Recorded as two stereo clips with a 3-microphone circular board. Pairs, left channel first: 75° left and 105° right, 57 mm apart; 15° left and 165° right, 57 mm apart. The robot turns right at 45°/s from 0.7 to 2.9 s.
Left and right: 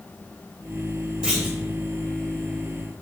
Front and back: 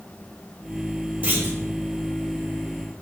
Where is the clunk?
165° right, 1.2 m; by 1.6 s 150° right, 1.2 m.